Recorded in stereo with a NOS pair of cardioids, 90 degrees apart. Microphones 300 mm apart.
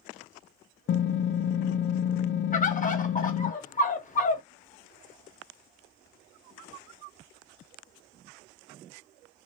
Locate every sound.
0.9 s typing on a keyboard: 40° left, 0.5 m
2.5 s a bird: 25° left, 0.9 m